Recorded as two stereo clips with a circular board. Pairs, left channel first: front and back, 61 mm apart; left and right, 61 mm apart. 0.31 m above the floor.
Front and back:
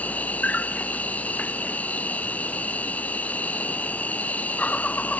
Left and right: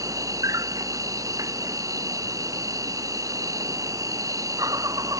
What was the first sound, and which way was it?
An insect, 65° right.